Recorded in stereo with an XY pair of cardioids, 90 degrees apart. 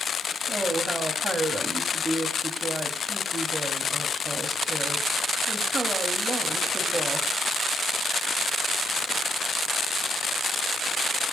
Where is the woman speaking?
35° right, 4 m.